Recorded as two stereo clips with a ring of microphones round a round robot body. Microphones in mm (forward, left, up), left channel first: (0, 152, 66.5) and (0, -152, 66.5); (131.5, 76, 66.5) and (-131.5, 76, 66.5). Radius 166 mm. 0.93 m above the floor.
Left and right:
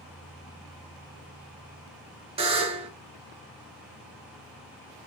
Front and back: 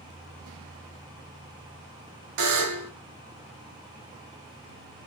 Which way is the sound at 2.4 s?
160° right.